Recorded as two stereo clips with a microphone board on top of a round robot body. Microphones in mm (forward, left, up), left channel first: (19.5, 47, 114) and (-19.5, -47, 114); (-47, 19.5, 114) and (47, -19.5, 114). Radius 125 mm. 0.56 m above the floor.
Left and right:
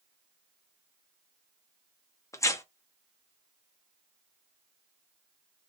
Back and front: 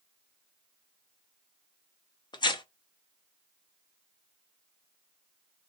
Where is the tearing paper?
125° left, 0.9 m.